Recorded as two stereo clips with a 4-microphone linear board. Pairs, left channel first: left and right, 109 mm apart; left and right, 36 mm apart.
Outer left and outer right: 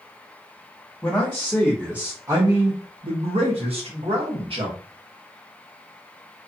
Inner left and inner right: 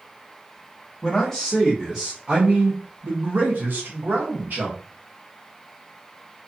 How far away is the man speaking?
About 1.0 m.